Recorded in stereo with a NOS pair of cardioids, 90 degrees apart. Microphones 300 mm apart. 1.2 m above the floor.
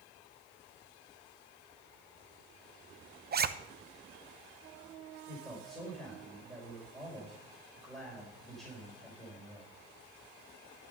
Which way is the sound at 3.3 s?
35° right.